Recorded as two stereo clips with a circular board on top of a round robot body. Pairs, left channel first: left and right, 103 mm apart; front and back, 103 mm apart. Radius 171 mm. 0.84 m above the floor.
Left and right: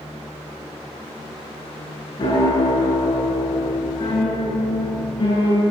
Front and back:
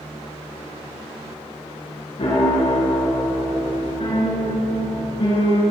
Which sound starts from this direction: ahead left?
A piano, at 2.2 s.